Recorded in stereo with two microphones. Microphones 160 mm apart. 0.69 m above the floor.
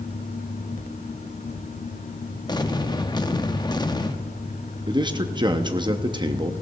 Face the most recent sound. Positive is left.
turn(degrees=-30)  # may be behind; listen again after turning